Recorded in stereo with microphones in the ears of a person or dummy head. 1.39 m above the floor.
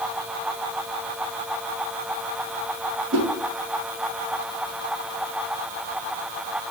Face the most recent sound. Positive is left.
turn(degrees=-70)  # may be behind; listen again after turning